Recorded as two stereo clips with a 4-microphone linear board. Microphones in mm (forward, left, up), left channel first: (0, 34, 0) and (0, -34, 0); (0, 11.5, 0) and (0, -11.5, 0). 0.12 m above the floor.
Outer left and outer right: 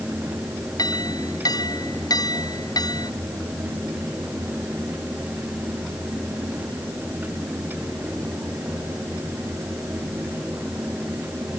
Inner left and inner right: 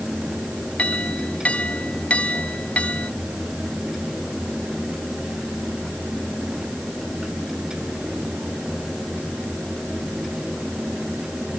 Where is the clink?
75° left (ahead or behind).